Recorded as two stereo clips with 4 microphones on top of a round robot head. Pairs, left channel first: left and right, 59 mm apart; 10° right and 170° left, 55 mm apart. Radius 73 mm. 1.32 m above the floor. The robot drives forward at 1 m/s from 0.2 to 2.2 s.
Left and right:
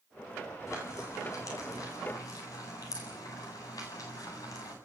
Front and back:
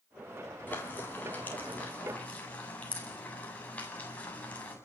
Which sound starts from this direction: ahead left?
Frying, at 0.7 s.